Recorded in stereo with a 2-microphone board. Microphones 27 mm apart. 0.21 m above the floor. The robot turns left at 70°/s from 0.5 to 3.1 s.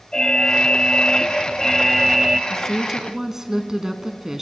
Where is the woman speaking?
20° left, 1.6 m; by 4.4 s 25° right, 1.6 m.